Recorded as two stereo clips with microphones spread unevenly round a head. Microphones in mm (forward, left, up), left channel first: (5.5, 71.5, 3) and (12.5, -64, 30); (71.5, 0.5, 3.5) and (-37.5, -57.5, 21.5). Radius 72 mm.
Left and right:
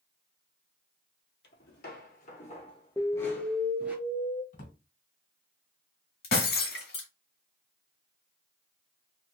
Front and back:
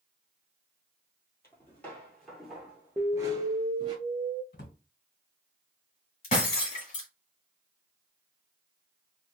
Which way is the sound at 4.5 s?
55° left.